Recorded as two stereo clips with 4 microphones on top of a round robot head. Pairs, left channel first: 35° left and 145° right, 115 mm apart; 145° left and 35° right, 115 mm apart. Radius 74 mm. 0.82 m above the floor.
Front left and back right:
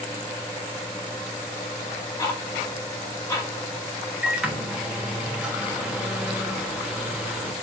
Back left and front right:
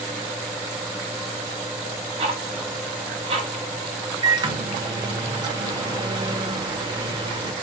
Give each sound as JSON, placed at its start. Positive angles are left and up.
{"t": 2.2, "sound": "ticking", "azimuth_deg": -20, "distance_m": 0.8}
{"t": 4.2, "sound": "a microwave", "azimuth_deg": -65, "distance_m": 0.7}